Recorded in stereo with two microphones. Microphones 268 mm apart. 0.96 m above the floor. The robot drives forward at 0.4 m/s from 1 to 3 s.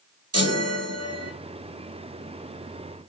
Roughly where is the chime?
Right.